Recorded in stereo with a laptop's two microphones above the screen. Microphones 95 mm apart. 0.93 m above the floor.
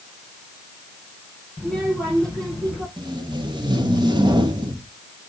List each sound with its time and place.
1.6 s a child speaking: 5° left (ahead or behind), 6 m
3.0 s tape being pulled: 50° right (ahead or behind), 2 m